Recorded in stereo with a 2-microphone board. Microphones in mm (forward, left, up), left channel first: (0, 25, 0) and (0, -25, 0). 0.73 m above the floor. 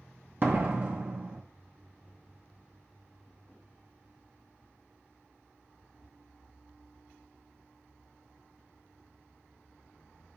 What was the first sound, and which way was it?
A door slam, 40° right (ahead or behind).